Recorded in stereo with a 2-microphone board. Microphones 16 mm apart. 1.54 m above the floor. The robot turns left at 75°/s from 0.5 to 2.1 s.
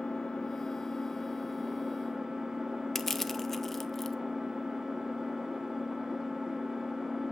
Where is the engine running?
70° left, 1.5 m; by 7.3 s 50° right, 1.5 m.